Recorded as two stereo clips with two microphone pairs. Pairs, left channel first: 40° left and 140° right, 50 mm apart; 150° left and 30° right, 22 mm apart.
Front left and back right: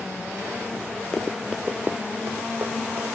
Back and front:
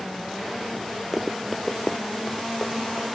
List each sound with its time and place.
1.1 s running footsteps: 15° right, 0.7 m; by 3.0 s 165° right, 1.8 m